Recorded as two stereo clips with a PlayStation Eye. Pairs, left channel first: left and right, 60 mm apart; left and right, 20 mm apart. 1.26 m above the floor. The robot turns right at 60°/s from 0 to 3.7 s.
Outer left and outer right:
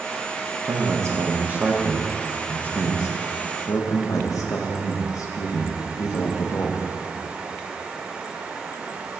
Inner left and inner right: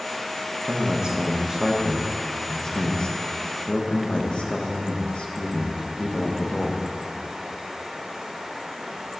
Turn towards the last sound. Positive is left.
turn(degrees=75)  # may be behind; listen again after turning